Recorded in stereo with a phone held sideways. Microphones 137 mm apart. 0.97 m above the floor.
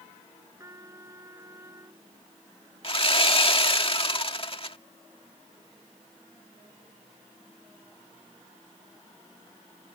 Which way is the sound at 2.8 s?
45° left (ahead or behind).